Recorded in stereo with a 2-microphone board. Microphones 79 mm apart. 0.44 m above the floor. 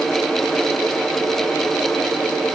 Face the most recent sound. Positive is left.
No sound to turn to.